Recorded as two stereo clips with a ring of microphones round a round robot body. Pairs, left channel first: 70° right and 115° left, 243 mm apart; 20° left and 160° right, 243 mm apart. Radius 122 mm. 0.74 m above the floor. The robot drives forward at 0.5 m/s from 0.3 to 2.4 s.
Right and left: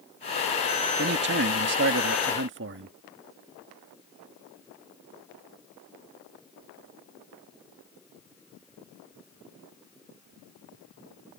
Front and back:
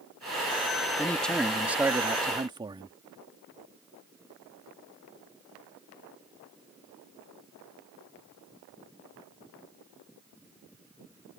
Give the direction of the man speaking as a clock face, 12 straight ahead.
9 o'clock.